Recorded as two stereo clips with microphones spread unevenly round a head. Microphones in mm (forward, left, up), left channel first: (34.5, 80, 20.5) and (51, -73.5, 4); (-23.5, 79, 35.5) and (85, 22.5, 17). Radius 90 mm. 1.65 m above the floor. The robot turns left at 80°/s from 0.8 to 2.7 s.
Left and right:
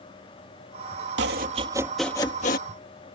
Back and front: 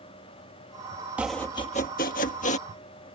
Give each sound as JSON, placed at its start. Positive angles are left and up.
{"t": 1.2, "sound": "chopping", "azimuth_deg": -110}